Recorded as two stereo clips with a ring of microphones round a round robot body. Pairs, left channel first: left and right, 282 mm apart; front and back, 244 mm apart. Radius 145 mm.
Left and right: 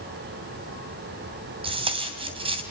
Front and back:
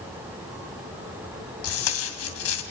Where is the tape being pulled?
20° right, 3 m.